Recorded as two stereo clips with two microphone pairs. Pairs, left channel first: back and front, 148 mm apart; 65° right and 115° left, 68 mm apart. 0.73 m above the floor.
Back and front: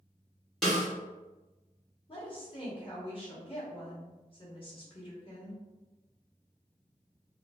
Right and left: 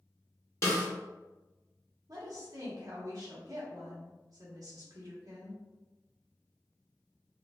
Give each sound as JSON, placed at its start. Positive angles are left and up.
{"t": 0.6, "sound": "a snare drum", "azimuth_deg": -90, "distance_m": 1.3}
{"t": 2.1, "sound": "a woman speaking", "azimuth_deg": 130, "distance_m": 1.4}